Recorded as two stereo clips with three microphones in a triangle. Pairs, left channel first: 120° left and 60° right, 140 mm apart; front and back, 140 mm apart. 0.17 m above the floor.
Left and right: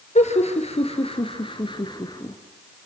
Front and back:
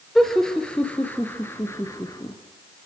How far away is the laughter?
About 3.5 m.